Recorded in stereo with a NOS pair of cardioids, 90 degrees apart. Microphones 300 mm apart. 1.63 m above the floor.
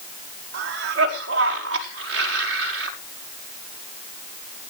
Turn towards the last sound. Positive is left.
turn(degrees=-50)